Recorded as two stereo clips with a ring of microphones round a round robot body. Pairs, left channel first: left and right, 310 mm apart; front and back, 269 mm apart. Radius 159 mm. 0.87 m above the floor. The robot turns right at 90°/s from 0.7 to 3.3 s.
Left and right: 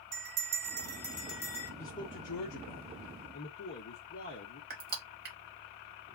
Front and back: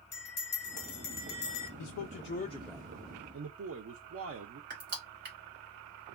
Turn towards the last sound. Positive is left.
turn(degrees=-140)